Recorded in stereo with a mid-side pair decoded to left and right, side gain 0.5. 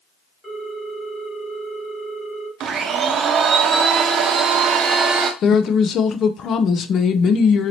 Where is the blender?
55° right, 0.8 m.